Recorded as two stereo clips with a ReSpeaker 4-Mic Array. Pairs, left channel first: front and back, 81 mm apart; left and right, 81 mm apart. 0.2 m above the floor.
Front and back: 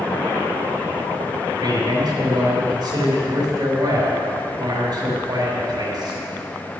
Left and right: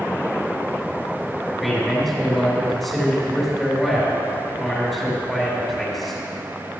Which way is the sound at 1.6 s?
Straight behind.